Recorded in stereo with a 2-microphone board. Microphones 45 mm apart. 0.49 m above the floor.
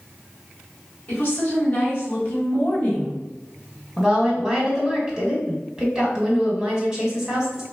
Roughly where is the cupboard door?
I don't hear a cupboard door.